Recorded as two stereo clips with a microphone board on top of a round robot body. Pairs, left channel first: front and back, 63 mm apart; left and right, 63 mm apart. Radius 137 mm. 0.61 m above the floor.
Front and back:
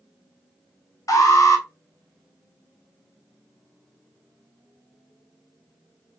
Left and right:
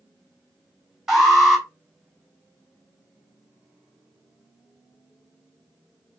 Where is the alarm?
10° right, 2.5 m.